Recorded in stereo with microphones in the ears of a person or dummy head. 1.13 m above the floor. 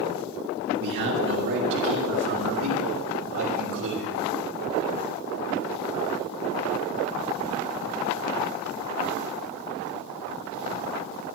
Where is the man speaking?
65° right (ahead or behind), 1.5 m; by 4.1 s 75° right (ahead or behind), 3.5 m.